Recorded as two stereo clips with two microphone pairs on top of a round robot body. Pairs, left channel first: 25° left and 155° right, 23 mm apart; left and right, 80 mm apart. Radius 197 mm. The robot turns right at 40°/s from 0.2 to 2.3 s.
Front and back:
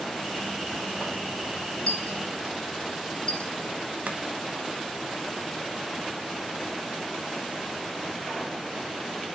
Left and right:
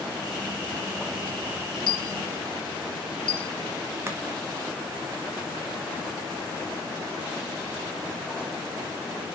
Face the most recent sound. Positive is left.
turn(degrees=-155)